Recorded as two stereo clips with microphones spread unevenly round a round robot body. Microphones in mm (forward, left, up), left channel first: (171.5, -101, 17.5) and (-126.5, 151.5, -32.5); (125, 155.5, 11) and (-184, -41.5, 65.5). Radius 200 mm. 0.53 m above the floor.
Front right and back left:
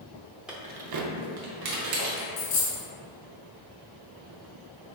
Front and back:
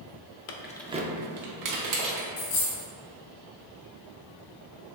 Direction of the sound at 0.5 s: 55° left.